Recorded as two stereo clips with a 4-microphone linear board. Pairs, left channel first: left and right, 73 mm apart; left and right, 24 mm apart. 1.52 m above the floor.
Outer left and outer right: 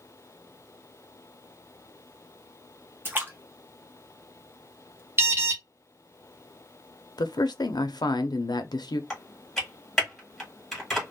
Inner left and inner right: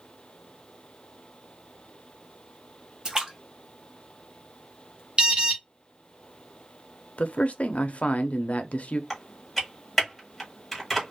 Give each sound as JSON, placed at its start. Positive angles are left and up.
{"t": 3.0, "sound": "a splash", "side_deg": -30, "distance_m": 1.0}
{"t": 5.2, "sound": "an alarm", "side_deg": -40, "distance_m": 0.9}
{"t": 7.2, "sound": "a man speaking", "side_deg": 80, "distance_m": 0.5}
{"t": 9.1, "sound": "typing on a keyboard", "side_deg": 5, "distance_m": 1.5}